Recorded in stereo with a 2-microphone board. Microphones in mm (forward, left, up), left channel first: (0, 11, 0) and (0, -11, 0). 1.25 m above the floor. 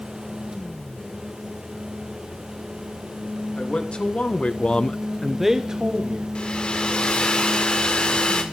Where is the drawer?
I don't hear a drawer.